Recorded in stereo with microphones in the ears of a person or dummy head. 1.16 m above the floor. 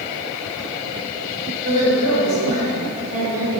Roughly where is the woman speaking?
Right.